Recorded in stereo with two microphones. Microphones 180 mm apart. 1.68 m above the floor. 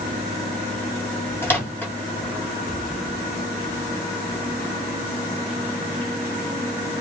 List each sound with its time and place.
1.4 s a microwave: 15° left (ahead or behind), 0.8 m